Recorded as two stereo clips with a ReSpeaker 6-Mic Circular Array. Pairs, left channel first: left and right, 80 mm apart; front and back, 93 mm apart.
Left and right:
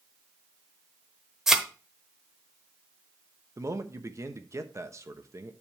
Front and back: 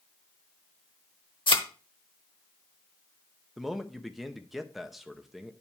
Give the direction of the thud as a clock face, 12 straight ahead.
12 o'clock.